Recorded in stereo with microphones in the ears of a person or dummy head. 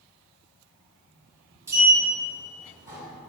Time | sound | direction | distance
1.7 | a sliding door | 10° right (ahead or behind) | 2.0 m